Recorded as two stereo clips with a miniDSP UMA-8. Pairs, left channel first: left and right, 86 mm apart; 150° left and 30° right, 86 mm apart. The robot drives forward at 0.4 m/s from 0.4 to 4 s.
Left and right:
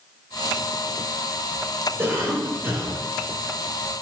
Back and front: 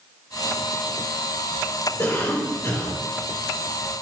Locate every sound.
2.0 s a cough: 155° right, 2.5 m; by 3.0 s 160° right, 3 m